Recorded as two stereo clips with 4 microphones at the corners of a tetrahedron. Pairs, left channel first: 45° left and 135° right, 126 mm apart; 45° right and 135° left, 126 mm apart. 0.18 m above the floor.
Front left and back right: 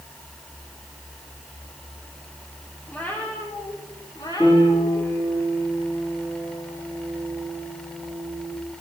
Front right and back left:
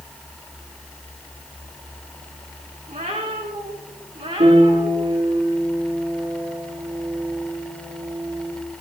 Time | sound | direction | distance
2.9 | a cat meowing | 125° left | 3.5 m
4.4 | a piano | 115° left | 5.5 m